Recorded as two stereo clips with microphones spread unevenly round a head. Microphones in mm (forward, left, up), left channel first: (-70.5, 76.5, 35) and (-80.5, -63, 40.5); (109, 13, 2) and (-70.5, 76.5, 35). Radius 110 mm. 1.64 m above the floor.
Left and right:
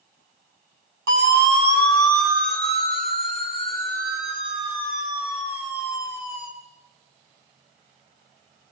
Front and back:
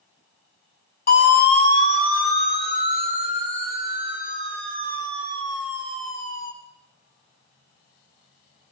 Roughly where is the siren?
Right.